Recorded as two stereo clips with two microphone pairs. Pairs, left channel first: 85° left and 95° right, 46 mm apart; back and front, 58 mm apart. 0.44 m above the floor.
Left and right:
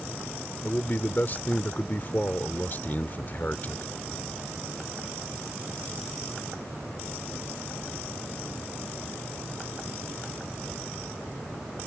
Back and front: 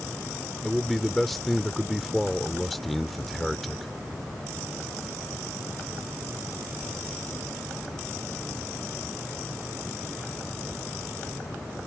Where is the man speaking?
95° left.